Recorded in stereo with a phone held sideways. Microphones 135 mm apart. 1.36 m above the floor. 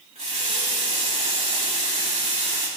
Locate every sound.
0.1 s a running tap: 55° right (ahead or behind), 3 m